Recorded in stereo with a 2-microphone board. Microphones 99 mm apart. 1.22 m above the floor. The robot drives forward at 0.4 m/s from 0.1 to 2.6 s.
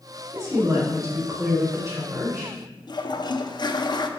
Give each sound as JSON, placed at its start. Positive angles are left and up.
{"t": 0.3, "sound": "a woman speaking", "side_deg": -40, "distance_m": 3.0}
{"t": 2.9, "sound": "a toilet flushing", "side_deg": 45, "distance_m": 0.5}